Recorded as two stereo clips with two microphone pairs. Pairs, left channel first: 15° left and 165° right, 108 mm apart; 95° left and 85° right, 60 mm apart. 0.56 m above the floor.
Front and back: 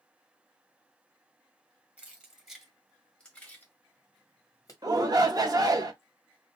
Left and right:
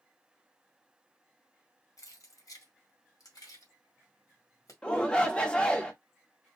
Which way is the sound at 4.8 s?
165° left.